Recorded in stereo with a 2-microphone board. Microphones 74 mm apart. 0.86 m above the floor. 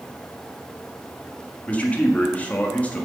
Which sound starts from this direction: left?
A man speaking, at 1.7 s.